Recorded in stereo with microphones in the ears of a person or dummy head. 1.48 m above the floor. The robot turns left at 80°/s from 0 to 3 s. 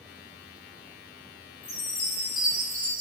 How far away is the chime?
About 1.5 m.